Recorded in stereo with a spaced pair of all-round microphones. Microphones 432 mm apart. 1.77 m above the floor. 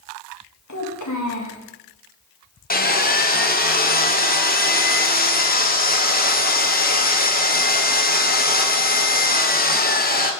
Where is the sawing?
20° left (ahead or behind), 0.7 m.